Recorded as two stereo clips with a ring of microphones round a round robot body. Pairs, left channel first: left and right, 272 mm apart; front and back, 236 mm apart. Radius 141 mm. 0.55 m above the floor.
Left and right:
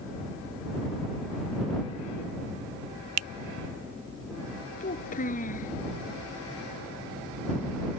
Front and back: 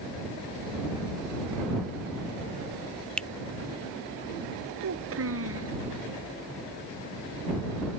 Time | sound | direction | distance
3.2 | a finger snap | 85° right | ?
4.8 | a child speaking | 155° left | ?